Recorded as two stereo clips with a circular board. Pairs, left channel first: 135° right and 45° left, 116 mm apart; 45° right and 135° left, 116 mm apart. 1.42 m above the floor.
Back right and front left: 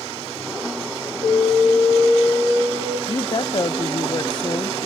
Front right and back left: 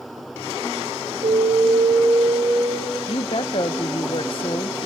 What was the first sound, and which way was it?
An alarm, 170° left.